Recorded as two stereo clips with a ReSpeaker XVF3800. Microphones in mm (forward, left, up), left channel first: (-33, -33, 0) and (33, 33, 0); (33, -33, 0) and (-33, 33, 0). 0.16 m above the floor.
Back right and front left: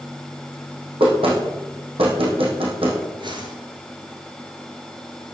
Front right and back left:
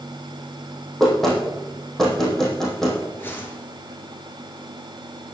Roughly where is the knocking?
Ahead left.